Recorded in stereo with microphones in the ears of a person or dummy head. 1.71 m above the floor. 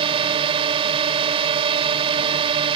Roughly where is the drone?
Right.